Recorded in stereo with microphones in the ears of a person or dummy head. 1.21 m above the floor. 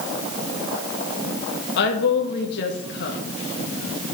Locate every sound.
1.8 s a woman speaking: 60° left (ahead or behind), 1.5 m